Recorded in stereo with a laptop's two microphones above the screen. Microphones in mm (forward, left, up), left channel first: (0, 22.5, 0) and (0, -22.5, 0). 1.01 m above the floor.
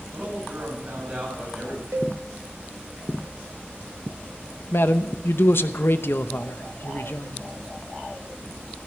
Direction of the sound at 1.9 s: 70° right (ahead or behind).